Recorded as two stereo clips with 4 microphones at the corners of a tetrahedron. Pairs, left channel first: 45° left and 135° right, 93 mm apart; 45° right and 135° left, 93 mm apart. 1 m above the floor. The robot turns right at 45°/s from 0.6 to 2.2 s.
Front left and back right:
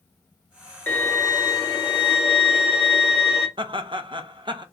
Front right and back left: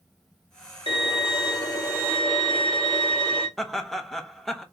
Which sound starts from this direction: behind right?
Laughter, at 3.6 s.